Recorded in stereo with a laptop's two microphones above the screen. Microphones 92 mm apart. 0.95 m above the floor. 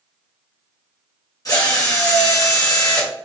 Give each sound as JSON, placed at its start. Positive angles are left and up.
{"t": 1.4, "sound": "a drill", "side_deg": 40, "distance_m": 0.9}